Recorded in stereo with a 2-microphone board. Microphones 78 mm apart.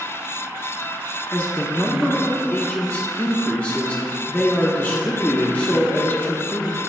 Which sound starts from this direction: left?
A man speaking, at 1.3 s.